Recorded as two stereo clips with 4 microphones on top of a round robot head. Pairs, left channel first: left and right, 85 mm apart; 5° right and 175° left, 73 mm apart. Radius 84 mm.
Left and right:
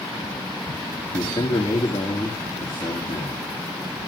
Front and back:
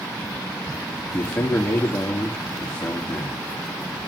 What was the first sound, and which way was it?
A man speaking, 60° left.